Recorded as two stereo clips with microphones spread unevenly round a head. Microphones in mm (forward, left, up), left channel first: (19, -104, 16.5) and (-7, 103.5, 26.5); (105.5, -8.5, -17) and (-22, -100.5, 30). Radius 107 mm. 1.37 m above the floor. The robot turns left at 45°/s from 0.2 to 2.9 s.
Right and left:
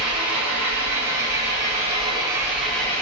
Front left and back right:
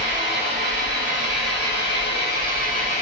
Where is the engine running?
120° left, 3.5 m; by 3.0 s 5° right, 3.5 m.